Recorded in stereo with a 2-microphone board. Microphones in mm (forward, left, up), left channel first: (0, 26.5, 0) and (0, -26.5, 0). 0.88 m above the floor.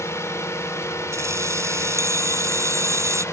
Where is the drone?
60° left (ahead or behind); by 3.4 s 65° left (ahead or behind).